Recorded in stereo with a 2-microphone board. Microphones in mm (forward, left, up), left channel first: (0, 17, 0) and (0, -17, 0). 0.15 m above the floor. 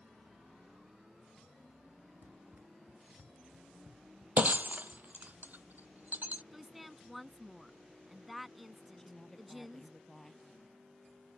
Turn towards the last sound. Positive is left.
turn(degrees=15)  # may be behind; listen again after turning